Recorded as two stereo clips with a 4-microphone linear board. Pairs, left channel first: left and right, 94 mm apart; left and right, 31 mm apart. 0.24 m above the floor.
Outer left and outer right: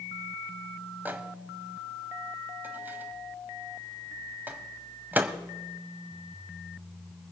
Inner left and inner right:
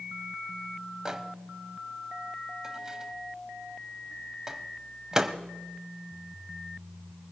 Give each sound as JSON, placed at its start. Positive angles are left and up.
{"t": 1.1, "sound": "a microwave", "side_deg": -20, "distance_m": 0.9}